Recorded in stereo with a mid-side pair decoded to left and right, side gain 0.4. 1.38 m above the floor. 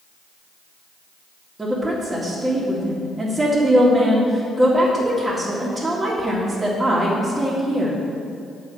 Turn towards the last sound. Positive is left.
turn(degrees=-15)